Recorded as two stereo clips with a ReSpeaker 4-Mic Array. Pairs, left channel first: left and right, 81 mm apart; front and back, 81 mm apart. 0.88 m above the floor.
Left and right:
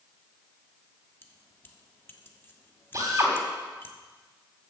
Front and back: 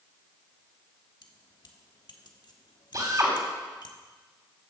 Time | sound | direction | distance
1.2 | keys jangling | 30° left | 1.2 m
2.9 | a drill | 140° right | 3 m